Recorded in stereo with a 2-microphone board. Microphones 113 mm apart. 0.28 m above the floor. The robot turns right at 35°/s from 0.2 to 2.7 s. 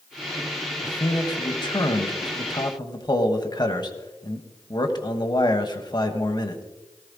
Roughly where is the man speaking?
Ahead left.